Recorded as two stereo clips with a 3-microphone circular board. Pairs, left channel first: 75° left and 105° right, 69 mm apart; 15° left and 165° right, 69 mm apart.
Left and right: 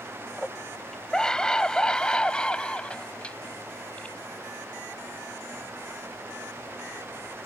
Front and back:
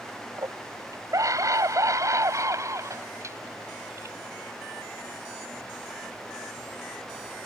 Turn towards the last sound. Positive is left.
turn(degrees=145)